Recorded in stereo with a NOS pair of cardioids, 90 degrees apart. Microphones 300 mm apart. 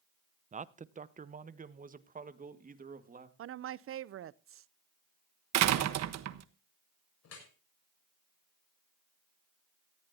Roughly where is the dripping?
Ahead left.